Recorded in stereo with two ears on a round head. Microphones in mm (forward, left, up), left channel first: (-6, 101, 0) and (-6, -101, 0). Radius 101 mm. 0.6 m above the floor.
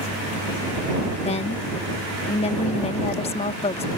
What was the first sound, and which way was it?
A woman speaking, 25° left (ahead or behind).